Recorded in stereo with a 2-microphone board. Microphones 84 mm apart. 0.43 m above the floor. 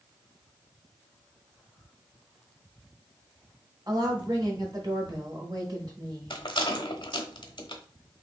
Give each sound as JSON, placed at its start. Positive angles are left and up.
{"t": 3.9, "sound": "a woman speaking", "side_deg": -55, "distance_m": 1.7}
{"t": 6.3, "sound": "a rattle", "side_deg": 75, "distance_m": 0.8}